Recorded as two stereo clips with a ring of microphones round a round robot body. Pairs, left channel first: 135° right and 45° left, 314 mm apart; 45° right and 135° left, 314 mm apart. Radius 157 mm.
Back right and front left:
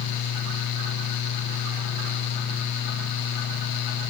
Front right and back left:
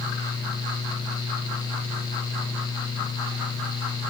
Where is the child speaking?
I don't hear a child speaking.